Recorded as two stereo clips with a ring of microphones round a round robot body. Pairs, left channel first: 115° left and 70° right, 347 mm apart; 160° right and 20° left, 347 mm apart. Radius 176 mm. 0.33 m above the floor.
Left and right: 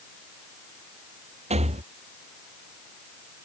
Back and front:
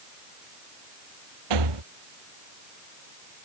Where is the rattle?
5° left.